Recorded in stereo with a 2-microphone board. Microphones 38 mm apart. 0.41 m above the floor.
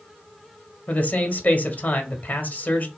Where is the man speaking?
40° left (ahead or behind), 1.5 m.